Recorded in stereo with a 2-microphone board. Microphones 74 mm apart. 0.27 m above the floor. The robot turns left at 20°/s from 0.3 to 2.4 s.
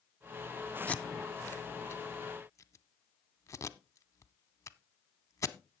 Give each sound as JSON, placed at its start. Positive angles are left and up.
{"t": 0.9, "sound": "tape being pulled", "side_deg": 20, "distance_m": 0.6}